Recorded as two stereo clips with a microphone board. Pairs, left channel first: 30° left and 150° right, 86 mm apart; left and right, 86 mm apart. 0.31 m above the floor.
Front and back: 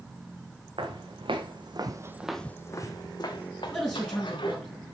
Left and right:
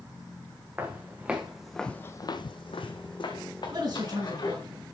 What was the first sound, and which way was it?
Footsteps, 155° right.